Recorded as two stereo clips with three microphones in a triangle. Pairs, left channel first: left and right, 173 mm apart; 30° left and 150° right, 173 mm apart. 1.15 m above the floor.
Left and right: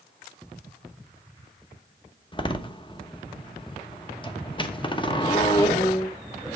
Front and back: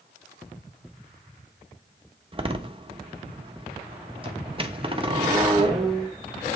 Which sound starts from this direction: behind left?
A door slam, at 2.3 s.